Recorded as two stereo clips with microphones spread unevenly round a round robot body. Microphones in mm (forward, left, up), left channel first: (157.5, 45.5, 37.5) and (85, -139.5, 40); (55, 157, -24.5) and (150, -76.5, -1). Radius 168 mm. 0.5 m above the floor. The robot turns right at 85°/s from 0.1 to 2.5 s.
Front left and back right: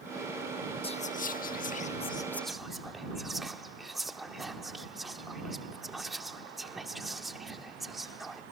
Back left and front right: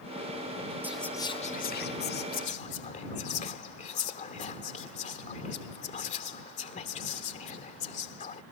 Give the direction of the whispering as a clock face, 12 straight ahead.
11 o'clock.